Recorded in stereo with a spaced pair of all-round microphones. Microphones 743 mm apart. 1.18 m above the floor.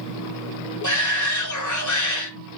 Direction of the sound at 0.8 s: 25° left (ahead or behind).